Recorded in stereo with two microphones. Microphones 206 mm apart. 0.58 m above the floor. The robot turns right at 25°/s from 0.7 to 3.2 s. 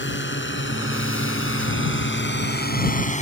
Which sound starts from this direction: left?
A drone, at 0.0 s.